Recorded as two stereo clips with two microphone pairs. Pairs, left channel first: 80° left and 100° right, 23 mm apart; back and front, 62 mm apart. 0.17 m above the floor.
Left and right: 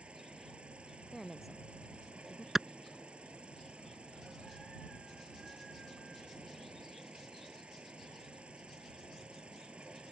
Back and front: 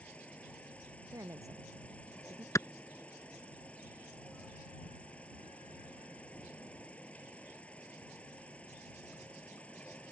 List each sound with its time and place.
0.0 s an insect: 115° right
1.1 s a woman speaking: 15° right
2.5 s a clap: 165° right